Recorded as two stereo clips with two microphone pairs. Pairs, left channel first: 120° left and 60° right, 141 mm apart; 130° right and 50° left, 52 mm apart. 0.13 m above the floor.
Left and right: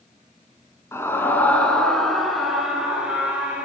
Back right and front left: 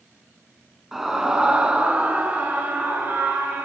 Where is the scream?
125° left, 1.6 m; by 3.6 s 20° left, 2.5 m.